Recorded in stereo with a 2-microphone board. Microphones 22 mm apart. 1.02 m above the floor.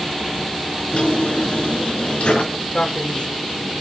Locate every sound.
0.9 s a drawer: 80° left, 4 m
2.7 s a man speaking: 65° left (ahead or behind), 2.0 m